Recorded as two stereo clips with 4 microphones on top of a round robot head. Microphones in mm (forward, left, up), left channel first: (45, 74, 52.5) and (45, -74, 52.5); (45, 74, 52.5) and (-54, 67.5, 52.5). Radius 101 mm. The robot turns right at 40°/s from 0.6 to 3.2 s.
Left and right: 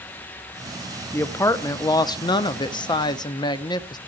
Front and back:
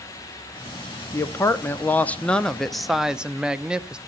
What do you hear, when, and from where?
1.1 s a woman speaking: 25° left, 0.7 m; by 4.0 s 110° left, 0.7 m